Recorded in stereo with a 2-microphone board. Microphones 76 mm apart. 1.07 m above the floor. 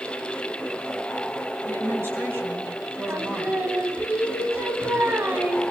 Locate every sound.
1.6 s a woman speaking: 35° right (ahead or behind), 6.5 m; by 3.6 s 30° right (ahead or behind), 5 m
3.1 s singing: 30° right (ahead or behind), 3 m